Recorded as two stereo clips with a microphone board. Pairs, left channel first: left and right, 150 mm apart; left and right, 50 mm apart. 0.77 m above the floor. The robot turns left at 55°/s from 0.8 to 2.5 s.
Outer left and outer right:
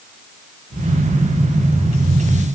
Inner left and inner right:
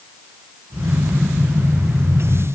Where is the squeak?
I don't hear a squeak.